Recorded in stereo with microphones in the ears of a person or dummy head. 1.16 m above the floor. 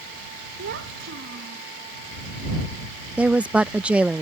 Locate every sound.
0.6 s a child speaking: 60° right (ahead or behind)
3.2 s a woman speaking: centre (ahead or behind)